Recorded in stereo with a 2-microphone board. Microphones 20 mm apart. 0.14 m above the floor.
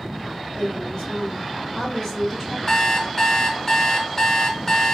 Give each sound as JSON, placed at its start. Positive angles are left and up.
{"t": 0.5, "sound": "a woman speaking", "side_deg": 40, "distance_m": 2.0}
{"t": 2.7, "sound": "an alarm clock", "side_deg": 25, "distance_m": 0.6}